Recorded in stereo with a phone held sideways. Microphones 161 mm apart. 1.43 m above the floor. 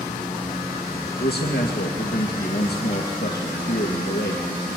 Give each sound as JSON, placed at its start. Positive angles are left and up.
{"t": 1.2, "sound": "a man speaking", "side_deg": 85, "distance_m": 2.0}